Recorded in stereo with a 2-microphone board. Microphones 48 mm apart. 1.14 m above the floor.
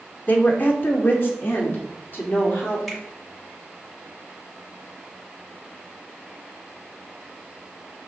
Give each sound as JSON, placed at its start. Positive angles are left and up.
{"t": 0.3, "sound": "a woman speaking", "side_deg": 35, "distance_m": 1.4}
{"t": 2.9, "sound": "a finger snap", "side_deg": 0, "distance_m": 5.0}